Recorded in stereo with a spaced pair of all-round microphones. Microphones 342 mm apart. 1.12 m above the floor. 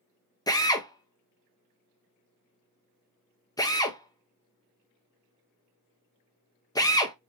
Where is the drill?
10° left (ahead or behind), 0.6 m.